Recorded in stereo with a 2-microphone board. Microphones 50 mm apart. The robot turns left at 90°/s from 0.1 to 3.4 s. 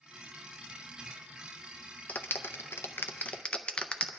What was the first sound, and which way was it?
A clap, 30° left (ahead or behind).